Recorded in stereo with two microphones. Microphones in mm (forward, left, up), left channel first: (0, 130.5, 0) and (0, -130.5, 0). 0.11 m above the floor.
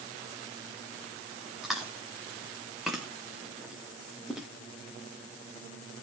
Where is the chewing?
Centre (ahead or behind), 2 m.